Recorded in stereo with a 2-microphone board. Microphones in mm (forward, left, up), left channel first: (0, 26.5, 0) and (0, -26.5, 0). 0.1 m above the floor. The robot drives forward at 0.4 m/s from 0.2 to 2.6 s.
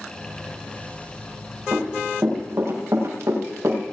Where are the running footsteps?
50° right (ahead or behind), 7.5 m; by 3.8 s 65° right (ahead or behind), 8 m.